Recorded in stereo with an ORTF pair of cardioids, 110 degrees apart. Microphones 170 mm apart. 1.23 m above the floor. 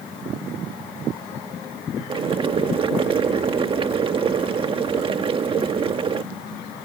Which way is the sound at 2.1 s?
30° right.